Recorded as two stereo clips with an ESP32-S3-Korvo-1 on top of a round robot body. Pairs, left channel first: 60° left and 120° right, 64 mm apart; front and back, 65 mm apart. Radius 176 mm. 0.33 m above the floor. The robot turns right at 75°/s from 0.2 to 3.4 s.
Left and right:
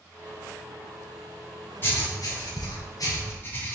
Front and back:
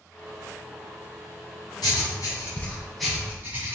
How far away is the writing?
About 1.9 m.